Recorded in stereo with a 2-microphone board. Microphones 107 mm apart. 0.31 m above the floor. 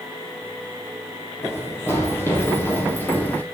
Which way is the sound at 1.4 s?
25° left (ahead or behind).